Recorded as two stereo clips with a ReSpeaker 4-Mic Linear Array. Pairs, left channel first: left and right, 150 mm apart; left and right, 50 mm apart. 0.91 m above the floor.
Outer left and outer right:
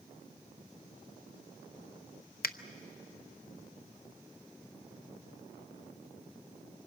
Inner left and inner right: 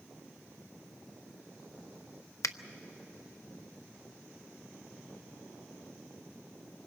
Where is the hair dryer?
I don't hear a hair dryer.